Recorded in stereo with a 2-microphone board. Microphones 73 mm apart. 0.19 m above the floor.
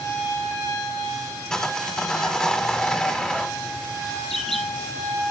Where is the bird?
5° left (ahead or behind), 1.7 m.